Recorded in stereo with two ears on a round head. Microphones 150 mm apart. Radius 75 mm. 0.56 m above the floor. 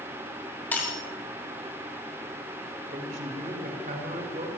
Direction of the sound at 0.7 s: 10° left (ahead or behind).